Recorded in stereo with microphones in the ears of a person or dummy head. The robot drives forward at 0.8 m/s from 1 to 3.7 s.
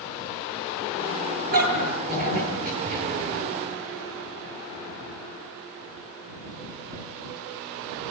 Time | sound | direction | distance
1.5 | a dog barking | 50° right (ahead or behind) | 9.5 m